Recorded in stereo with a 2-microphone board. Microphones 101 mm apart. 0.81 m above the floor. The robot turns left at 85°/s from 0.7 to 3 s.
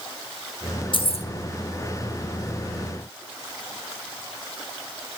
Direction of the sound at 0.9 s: 55° left (ahead or behind).